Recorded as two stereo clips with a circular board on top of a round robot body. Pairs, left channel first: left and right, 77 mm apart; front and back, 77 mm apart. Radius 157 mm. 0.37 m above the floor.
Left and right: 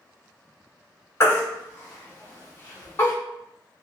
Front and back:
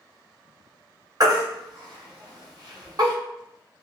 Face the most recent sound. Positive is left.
turn(degrees=145)